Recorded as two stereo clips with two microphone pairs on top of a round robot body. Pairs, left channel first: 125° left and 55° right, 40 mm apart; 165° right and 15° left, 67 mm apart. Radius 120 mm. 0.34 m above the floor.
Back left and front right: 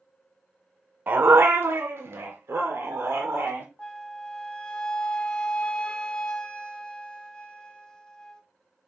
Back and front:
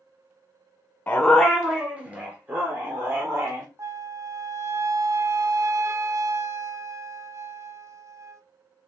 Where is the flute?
55° left, 0.9 m.